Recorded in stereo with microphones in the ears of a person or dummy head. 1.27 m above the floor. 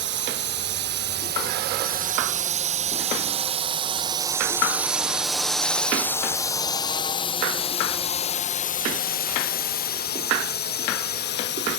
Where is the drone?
60° right (ahead or behind); by 11.8 s 60° left (ahead or behind).